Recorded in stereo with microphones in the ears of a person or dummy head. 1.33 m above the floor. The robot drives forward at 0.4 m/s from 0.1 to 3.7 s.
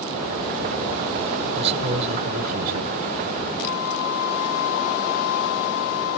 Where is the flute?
55° left (ahead or behind), 1.4 m; by 6.2 s 50° left (ahead or behind), 1.4 m.